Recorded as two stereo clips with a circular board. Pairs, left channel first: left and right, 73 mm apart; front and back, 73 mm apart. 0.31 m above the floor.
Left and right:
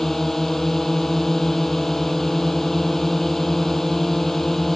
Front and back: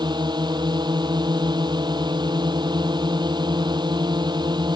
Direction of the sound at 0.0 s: 175° left.